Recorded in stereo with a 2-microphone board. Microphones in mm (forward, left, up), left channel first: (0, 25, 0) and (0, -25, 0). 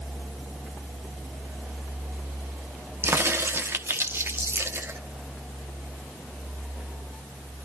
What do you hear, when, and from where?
3.0 s a crack: 50° right (ahead or behind), 1.1 m